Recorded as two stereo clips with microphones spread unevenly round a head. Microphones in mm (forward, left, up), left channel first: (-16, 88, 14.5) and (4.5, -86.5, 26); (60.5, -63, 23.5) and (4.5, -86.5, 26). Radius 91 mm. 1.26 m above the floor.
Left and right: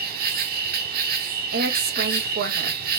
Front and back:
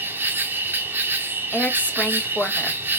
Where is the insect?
110° right, 1.5 m.